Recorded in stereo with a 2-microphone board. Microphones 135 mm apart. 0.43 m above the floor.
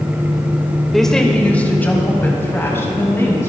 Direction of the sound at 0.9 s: Centre (ahead or behind).